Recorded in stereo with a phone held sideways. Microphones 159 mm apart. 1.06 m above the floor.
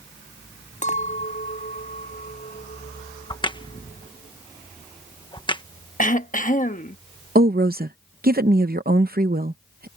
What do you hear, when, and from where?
0.8 s a clink: 50° left (ahead or behind)
3.3 s a crack: 30° left (ahead or behind)
6.0 s throat clearing: 55° left (ahead or behind)
7.3 s a woman speaking: 70° right (ahead or behind)